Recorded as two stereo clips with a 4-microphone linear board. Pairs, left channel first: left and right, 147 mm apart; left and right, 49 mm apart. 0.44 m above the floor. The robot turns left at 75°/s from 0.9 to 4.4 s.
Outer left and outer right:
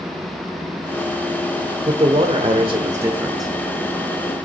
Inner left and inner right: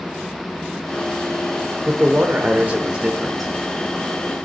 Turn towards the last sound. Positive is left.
turn(degrees=105)